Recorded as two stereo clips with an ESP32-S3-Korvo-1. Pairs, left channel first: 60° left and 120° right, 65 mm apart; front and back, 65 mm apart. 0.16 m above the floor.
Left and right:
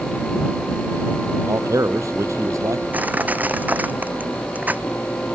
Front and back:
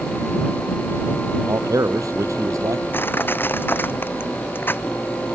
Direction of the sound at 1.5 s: 150° right.